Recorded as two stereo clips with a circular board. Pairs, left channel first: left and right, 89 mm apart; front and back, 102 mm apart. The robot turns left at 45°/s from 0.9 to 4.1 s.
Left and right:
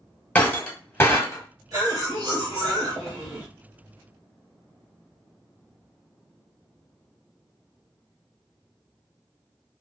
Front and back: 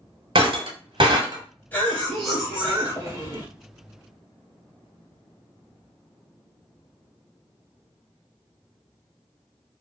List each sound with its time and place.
0.3 s breaking glass: 155° left, 0.8 m; by 1.4 s 135° left, 0.8 m
1.7 s a cough: 65° right, 1.6 m; by 3.5 s 145° right, 1.6 m